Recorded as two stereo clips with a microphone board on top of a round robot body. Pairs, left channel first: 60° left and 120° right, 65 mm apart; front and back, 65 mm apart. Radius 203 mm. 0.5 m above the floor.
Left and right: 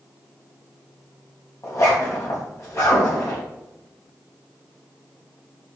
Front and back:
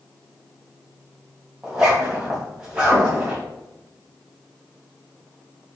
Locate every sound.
1.6 s a zipper: 100° left, 3.5 m